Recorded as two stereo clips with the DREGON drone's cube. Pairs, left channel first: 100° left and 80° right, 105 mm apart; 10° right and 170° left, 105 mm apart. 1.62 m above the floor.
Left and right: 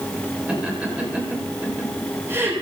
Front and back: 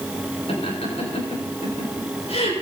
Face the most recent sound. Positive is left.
turn(degrees=-15)